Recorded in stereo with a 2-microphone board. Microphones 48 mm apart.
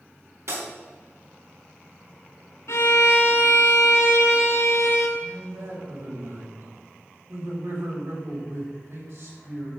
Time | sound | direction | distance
0.5 | breaking glass | 70° right (ahead or behind) | 4 m
2.7 | a violin | 65° left (ahead or behind) | 2.5 m
5.2 | a man speaking | 75° right (ahead or behind) | 5 m